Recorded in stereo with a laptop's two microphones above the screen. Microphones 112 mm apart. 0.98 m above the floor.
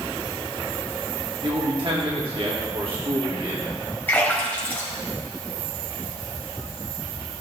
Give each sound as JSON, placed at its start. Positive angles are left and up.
{"t": 1.4, "sound": "a man speaking", "side_deg": -55, "distance_m": 2.0}
{"t": 4.1, "sound": "a splash", "side_deg": 15, "distance_m": 3.5}